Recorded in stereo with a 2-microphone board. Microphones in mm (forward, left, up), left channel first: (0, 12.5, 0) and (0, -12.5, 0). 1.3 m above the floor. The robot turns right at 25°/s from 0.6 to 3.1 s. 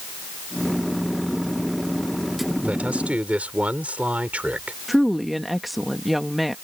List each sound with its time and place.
2.6 s a man speaking: 70° right (ahead or behind); by 4.8 s 80° right
4.9 s a woman speaking: centre (ahead or behind)